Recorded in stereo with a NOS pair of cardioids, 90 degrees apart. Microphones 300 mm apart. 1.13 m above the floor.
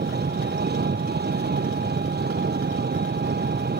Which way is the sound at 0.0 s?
35° right.